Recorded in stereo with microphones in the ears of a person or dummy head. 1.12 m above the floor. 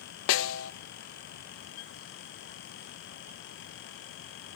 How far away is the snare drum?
About 0.7 m.